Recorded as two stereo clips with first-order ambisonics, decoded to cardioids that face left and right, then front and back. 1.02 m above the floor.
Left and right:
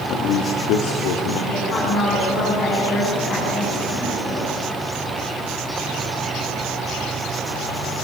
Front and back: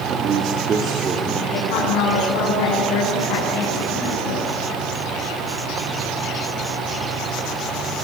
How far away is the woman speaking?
About 9.5 m.